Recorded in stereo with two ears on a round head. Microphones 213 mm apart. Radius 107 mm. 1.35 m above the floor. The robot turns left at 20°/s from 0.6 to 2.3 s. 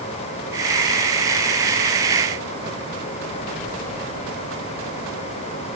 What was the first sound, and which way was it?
Only background noise.